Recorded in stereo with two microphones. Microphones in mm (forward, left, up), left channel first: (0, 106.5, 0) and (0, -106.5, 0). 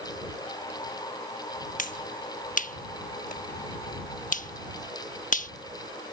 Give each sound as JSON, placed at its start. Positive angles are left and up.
{"t": 1.8, "sound": "a finger snap", "side_deg": 40}